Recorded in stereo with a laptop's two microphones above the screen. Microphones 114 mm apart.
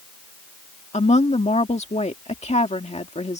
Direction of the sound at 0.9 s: 75° left (ahead or behind).